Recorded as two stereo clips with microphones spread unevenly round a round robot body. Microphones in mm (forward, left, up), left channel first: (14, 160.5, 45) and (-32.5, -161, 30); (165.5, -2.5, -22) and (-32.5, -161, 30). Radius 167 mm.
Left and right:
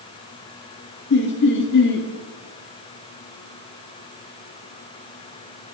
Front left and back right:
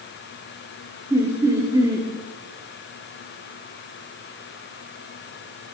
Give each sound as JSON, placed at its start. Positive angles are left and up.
{"t": 1.1, "sound": "laughter", "azimuth_deg": 130, "distance_m": 1.7}